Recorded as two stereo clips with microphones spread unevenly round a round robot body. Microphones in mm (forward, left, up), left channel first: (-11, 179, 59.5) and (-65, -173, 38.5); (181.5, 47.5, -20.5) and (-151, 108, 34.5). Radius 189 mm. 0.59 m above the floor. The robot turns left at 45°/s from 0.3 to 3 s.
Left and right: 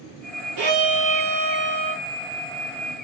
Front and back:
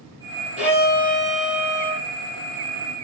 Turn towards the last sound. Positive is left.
turn(degrees=135)